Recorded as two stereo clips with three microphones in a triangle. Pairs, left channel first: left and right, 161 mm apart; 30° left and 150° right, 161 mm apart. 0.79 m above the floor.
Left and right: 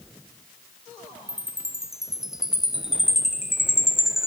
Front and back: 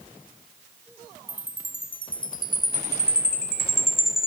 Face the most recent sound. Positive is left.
turn(degrees=-5)